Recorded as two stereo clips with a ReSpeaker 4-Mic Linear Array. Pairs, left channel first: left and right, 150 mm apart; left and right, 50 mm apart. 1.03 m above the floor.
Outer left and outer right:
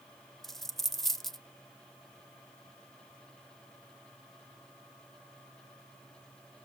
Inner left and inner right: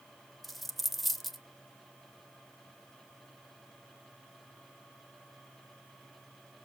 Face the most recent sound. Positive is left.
turn(degrees=0)  # may be behind; listen again after turning